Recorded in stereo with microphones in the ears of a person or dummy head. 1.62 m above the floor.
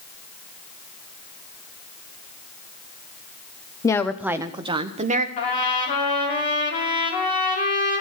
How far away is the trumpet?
About 3 m.